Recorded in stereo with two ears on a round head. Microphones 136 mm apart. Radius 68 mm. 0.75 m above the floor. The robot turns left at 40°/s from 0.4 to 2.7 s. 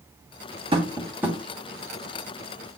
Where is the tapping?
35° right (ahead or behind), 2 m; by 1.4 s 5° right (ahead or behind), 2 m.